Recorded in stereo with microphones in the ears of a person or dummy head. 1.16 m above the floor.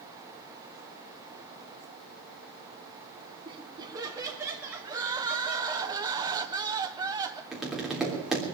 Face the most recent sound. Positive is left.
turn(degrees=0)  # may be behind; listen again after turning